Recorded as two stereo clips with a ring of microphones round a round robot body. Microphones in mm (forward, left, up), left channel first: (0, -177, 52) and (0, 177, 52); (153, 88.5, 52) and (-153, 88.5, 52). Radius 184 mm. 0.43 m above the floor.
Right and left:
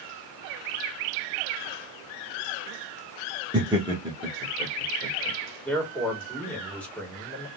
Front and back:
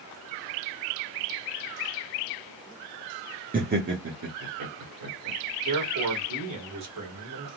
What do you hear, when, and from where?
3.5 s laughter: 155° left, 0.9 m; by 5.4 s 165° left, 1.6 m
5.7 s a man speaking: 175° right, 1.9 m